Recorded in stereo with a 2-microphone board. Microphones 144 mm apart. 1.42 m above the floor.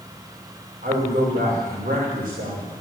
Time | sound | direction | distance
0.8 | a man speaking | 80° right | 5 m